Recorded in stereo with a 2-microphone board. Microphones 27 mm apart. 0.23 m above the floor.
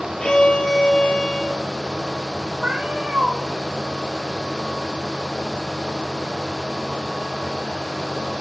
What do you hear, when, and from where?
0.2 s a violin: 30° left (ahead or behind), 5 m
2.6 s a cat meowing: 45° right (ahead or behind), 4 m